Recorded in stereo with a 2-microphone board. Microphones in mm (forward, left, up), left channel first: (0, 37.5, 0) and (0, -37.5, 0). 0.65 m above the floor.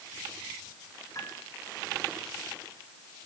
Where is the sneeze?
No sneeze in this recording.